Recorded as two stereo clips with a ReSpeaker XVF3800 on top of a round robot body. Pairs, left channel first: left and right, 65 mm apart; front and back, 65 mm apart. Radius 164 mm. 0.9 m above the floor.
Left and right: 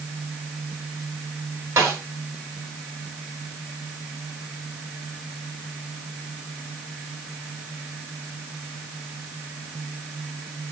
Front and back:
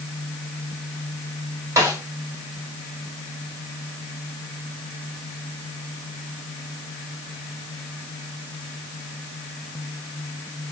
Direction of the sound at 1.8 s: 135° right.